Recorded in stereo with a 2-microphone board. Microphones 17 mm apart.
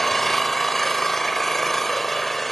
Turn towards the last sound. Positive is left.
turn(degrees=15)  # may be behind; listen again after turning